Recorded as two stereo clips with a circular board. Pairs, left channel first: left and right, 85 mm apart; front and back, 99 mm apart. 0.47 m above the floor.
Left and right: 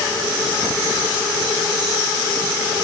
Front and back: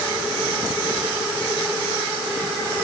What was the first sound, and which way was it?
Only background noise.